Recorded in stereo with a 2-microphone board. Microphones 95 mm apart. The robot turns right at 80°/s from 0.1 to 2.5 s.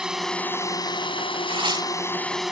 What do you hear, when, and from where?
0.0 s a drone: 10° right; by 2.5 s 175° right
1.5 s tearing paper: 70° right; by 1.9 s 35° right